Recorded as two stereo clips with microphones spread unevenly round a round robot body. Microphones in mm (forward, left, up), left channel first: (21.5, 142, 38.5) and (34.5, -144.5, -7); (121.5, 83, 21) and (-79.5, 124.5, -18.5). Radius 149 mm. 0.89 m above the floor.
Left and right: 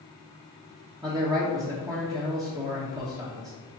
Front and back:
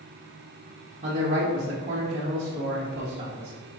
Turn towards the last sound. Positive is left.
turn(degrees=-150)